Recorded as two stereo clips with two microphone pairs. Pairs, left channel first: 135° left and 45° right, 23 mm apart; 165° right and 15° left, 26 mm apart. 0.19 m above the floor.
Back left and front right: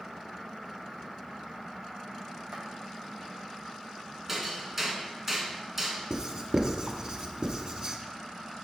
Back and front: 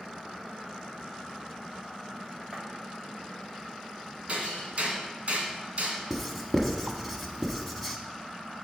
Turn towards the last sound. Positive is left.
turn(degrees=-70)